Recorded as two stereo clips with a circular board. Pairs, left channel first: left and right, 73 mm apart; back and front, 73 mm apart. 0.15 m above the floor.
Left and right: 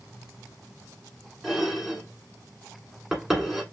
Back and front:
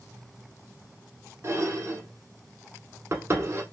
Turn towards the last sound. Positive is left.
turn(degrees=-5)